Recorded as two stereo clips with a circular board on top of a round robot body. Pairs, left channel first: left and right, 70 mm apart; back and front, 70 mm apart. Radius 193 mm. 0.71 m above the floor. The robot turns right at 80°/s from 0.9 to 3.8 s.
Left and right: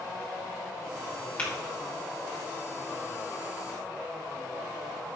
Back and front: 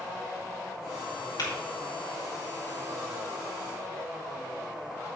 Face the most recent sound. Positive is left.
turn(degrees=-5)